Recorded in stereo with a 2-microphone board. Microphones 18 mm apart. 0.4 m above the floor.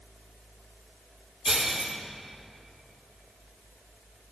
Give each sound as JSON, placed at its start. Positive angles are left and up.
{"t": 1.4, "sound": "breaking glass", "side_deg": -20, "distance_m": 4.5}